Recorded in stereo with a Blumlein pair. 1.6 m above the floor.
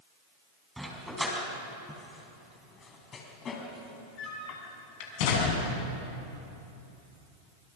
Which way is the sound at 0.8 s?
5° right.